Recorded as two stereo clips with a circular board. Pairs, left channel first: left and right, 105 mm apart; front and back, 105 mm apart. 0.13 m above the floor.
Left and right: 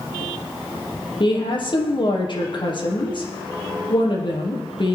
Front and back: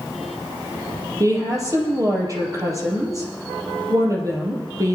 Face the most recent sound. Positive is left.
turn(degrees=125)